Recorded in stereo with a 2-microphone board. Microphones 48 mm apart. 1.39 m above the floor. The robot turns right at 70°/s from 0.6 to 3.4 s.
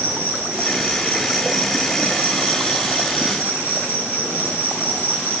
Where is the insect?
75° right, 2 m; by 5.4 s 120° left, 2 m.